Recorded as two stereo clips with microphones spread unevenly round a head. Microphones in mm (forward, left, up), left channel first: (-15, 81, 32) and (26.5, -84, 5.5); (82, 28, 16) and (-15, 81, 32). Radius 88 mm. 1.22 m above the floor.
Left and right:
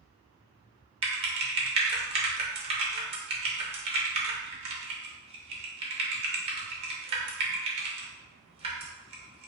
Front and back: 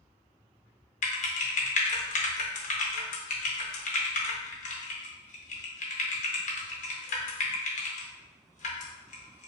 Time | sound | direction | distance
1.0 | typing on a keyboard | 15° right | 0.6 m